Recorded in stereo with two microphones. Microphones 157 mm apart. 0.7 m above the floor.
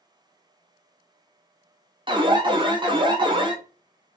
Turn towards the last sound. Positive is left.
turn(degrees=-30)  # may be behind; listen again after turning